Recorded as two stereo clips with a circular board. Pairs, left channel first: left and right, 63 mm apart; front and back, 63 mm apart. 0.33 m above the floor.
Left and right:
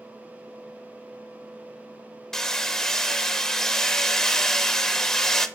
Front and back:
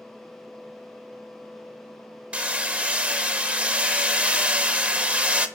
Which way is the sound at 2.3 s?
160° left.